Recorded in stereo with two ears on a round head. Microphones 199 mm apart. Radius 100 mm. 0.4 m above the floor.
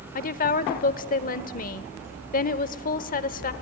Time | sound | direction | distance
0.1 | a woman speaking | 40° left (ahead or behind) | 1.0 m